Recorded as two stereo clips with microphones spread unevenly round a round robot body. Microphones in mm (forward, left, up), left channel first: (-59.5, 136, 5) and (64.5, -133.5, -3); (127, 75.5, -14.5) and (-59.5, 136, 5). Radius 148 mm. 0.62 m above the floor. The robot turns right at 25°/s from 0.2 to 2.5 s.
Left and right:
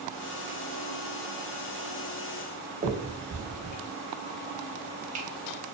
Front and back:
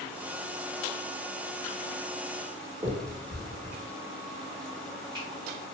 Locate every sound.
2.8 s a finger snap: 125° right, 0.6 m